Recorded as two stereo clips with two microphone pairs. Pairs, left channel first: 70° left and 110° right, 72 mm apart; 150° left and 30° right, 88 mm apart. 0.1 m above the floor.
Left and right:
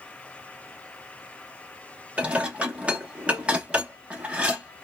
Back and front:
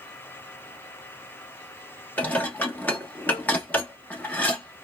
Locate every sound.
2.2 s dishes clattering: 165° right, 1.0 m